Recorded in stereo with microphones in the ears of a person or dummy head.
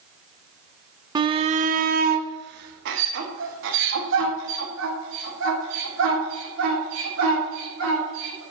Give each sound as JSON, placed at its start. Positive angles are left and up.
{"t": 1.1, "sound": "a shout", "side_deg": -20, "distance_m": 0.6}